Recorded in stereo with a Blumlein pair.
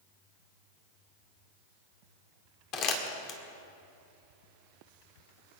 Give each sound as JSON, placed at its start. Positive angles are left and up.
{"t": 2.7, "sound": "crumpling", "azimuth_deg": 35, "distance_m": 2.0}